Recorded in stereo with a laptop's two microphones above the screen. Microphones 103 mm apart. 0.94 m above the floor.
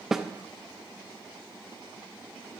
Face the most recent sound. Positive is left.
turn(degrees=-5)  # may be behind; listen again after turning